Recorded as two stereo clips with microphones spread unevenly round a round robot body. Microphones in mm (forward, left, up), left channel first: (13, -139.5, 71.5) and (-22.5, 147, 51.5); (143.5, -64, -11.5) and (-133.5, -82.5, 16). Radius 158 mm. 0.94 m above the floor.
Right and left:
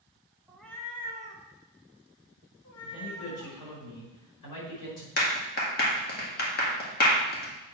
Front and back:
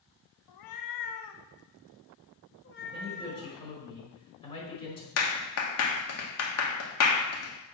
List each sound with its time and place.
0.5 s a cat meowing: 10° left, 0.8 m; by 3.6 s 50° right, 2 m
2.8 s a man speaking: 65° right, 5 m
5.2 s a clap: 25° right, 1.6 m